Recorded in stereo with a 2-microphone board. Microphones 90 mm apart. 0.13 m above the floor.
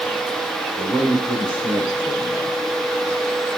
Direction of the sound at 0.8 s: 45° right (ahead or behind).